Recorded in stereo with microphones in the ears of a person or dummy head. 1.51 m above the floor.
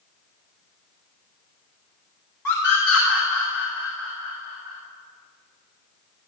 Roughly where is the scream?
Centre.